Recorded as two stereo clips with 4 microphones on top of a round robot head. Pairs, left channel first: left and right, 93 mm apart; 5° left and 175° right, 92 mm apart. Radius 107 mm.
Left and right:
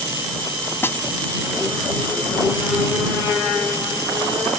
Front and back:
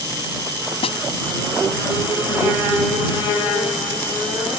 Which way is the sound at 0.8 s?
25° left.